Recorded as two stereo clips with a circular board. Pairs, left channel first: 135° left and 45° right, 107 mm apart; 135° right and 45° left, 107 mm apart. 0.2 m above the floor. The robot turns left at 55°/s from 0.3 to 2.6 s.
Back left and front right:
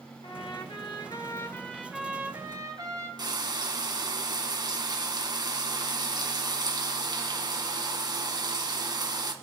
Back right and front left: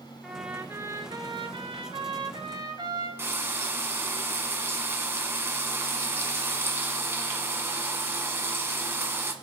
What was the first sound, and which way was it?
A trumpet, 130° left.